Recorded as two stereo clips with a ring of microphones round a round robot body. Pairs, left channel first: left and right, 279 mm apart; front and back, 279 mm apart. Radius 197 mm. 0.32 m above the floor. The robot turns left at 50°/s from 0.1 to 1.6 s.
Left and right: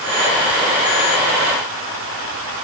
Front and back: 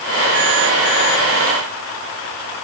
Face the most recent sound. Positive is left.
No sound to turn to.